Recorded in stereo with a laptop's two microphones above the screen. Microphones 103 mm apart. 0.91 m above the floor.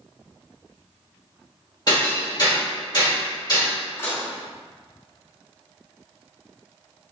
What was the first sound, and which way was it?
Hammering, 45° left (ahead or behind).